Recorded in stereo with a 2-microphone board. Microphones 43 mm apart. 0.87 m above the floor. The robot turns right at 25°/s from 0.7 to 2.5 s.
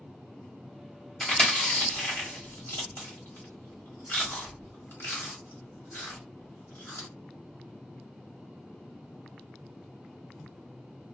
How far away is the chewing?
About 1.8 m.